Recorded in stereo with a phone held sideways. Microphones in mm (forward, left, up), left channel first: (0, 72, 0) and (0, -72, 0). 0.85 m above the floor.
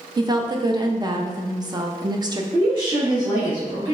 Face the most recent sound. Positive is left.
turn(degrees=-35)  # may be behind; listen again after turning